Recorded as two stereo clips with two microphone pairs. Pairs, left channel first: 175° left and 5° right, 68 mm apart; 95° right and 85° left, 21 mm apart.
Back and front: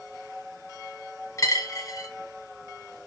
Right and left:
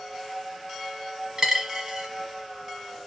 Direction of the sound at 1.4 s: 140° left.